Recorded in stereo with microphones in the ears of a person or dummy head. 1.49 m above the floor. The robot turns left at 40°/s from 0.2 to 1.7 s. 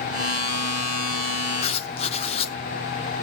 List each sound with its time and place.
1.6 s writing: 35° left (ahead or behind), 1.0 m